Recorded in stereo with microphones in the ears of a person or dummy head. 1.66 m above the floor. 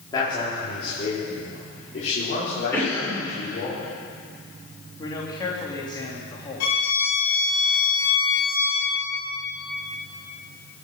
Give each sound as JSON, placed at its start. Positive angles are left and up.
{"t": 0.1, "sound": "a man speaking", "side_deg": 20, "distance_m": 3.5}
{"t": 2.7, "sound": "a cough", "side_deg": 15, "distance_m": 6.5}
{"t": 5.0, "sound": "a man speaking", "side_deg": 25, "distance_m": 3.0}
{"t": 6.6, "sound": "a violin", "side_deg": 80, "distance_m": 5.0}